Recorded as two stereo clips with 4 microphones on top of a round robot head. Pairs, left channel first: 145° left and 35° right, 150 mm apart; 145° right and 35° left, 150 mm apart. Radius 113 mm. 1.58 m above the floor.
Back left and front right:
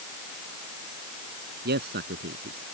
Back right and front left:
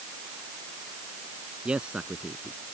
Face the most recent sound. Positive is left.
turn(degrees=-45)